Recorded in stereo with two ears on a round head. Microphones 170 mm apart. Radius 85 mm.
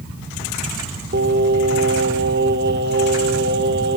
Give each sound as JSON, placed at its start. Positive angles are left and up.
{"t": 1.1, "sound": "singing", "side_deg": -55, "distance_m": 1.3}